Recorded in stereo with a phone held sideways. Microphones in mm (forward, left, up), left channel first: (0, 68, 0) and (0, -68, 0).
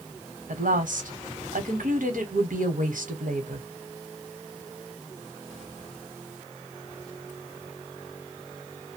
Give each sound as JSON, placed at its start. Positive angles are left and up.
{"t": 0.5, "sound": "a woman speaking", "side_deg": -75, "distance_m": 1.1}